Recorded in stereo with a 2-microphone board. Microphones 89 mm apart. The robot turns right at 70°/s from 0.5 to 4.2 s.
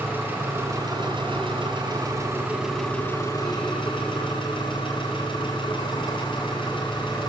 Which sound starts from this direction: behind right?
An engine running, at 0.0 s.